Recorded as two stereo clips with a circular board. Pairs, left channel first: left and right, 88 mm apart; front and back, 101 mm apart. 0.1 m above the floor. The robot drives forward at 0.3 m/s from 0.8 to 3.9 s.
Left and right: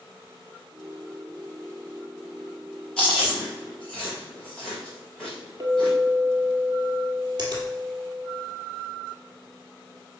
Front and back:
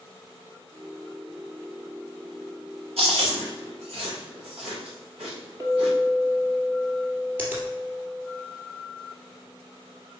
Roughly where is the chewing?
Behind.